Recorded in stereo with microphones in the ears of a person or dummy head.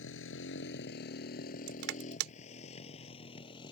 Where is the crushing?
70° right (ahead or behind).